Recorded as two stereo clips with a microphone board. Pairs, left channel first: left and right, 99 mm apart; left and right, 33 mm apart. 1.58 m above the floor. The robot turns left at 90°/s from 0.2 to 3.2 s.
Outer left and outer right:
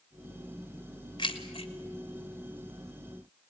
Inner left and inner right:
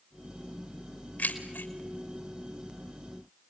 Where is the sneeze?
I don't hear a sneeze.